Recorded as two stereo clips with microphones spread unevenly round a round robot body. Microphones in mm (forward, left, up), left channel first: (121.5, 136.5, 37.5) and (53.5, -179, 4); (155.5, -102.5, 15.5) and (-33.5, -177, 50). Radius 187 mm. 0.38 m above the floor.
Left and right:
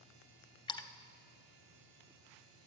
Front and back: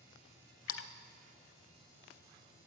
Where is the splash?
Straight ahead, 0.6 m.